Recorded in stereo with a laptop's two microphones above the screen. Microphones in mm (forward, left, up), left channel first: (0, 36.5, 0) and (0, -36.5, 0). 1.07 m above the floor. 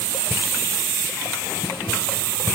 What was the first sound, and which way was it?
Only background noise.